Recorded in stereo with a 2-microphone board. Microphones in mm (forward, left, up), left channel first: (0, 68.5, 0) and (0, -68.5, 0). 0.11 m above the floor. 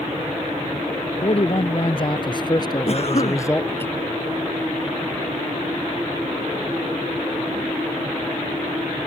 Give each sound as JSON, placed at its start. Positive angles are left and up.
{"t": 1.2, "sound": "a man speaking", "side_deg": 50}
{"t": 2.9, "sound": "a cough", "side_deg": 50}